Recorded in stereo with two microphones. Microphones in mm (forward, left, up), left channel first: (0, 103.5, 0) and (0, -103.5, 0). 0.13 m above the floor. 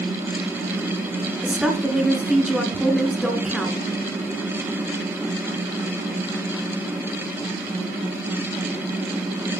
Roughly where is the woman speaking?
Centre.